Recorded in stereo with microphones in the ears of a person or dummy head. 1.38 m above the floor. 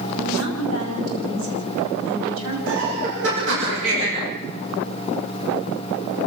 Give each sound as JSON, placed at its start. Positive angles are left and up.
{"t": 0.2, "sound": "a woman speaking", "side_deg": -90, "distance_m": 8.5}
{"t": 2.7, "sound": "laughter", "side_deg": -70, "distance_m": 6.0}